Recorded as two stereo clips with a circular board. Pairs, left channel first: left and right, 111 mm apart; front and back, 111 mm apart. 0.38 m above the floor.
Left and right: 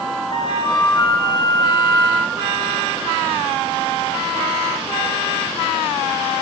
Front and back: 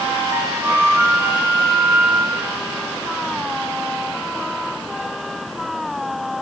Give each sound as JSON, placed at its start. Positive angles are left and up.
{"t": 0.3, "sound": "a flute", "azimuth_deg": 120, "distance_m": 1.6}